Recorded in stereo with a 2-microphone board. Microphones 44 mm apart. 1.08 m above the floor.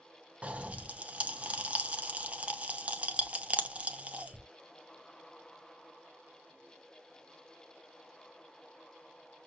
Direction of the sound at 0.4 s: 30° right (ahead or behind).